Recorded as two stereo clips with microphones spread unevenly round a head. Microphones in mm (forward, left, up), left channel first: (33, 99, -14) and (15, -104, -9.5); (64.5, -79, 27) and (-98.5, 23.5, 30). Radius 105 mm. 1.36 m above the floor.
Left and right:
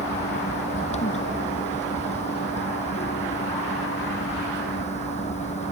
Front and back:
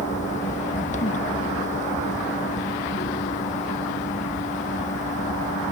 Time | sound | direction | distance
0.0 | a fan | 25° left | ?